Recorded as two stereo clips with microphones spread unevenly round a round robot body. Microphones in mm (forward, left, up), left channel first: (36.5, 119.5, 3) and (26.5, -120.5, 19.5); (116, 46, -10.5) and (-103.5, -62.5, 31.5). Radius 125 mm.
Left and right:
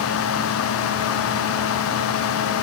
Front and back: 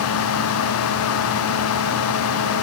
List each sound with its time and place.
Only background noise.